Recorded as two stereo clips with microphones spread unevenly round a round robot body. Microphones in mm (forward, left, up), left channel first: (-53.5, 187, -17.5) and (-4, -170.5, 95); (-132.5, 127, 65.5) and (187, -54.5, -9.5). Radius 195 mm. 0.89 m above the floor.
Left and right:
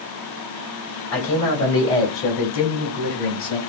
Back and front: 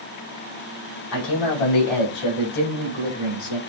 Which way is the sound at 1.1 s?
150° left.